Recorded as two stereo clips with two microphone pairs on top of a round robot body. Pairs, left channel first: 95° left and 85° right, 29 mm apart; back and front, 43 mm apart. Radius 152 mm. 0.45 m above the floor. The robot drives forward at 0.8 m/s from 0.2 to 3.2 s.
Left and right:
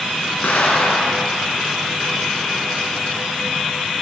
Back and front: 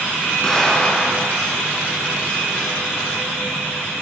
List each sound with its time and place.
0.4 s an explosion: 100° left, 7 m; by 1.3 s 105° left, 7 m